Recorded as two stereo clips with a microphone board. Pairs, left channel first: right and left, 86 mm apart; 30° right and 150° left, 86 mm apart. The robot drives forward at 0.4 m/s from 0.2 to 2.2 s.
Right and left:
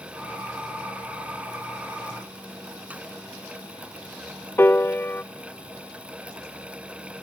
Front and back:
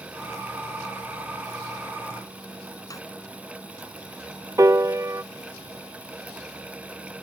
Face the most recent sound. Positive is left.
turn(degrees=-155)